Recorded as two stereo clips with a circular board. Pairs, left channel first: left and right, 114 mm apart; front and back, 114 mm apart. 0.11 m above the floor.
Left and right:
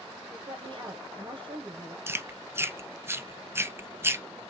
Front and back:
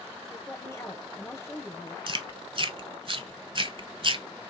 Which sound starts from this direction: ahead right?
A woman speaking, at 0.3 s.